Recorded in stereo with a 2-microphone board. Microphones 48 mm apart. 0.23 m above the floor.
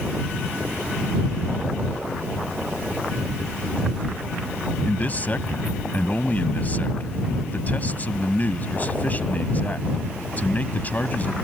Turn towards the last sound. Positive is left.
turn(degrees=35)  # may be behind; listen again after turning